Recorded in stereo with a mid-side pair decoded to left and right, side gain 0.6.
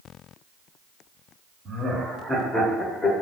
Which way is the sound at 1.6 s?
35° right.